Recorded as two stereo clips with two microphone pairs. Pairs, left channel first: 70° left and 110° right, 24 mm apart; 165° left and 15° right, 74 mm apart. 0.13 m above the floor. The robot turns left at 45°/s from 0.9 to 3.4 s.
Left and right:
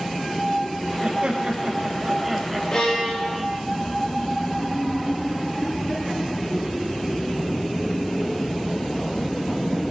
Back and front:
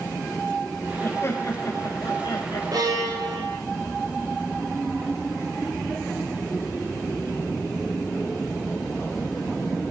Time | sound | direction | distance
1.0 | laughter | 135° right | 4.5 m
2.7 | a violin | 20° left | 9.5 m